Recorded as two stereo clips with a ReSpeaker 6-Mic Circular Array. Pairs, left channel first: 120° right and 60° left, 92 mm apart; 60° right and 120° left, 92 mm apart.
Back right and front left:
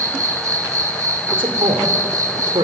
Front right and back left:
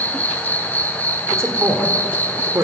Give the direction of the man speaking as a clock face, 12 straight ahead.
10 o'clock.